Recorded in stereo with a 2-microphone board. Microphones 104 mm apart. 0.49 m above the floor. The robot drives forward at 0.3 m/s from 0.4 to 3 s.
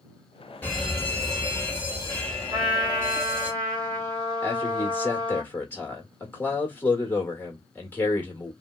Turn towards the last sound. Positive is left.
turn(degrees=15)  # may be behind; listen again after turning